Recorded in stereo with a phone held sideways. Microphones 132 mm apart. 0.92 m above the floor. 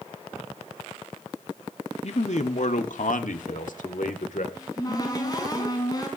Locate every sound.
2.0 s a man speaking: 55° left (ahead or behind), 1.6 m; by 4.5 s 80° left, 3 m
4.5 s a cupboard door: 30° left (ahead or behind), 5 m